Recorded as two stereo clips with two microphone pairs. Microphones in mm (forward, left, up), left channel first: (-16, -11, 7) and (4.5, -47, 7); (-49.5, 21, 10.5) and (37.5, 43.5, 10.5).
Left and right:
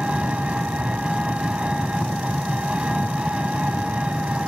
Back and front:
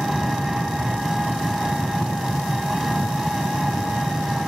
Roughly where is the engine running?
Ahead right.